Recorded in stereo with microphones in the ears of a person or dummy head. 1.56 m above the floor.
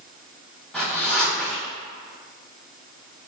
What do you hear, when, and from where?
0.7 s a zipper: 5° left (ahead or behind), 0.8 m